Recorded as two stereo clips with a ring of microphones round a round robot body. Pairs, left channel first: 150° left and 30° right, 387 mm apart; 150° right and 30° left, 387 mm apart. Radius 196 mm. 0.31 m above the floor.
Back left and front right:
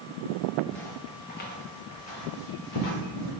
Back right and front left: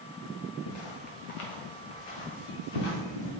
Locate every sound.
0.7 s footsteps: 120° right, 1.4 m; by 3.3 s 170° right, 3 m